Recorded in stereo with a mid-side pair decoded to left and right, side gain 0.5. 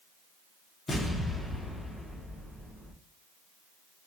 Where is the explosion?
20° left, 1.2 m.